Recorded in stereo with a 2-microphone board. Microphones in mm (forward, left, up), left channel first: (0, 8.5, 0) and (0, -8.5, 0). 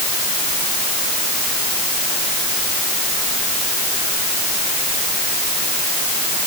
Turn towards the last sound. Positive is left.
No sound to turn to.